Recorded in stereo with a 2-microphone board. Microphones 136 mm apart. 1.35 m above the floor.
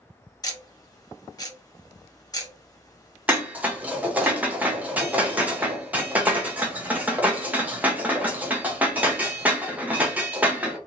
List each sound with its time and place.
0.4 s ticking: 30° left (ahead or behind), 0.8 m
3.3 s dishes clattering: 10° right (ahead or behind), 0.8 m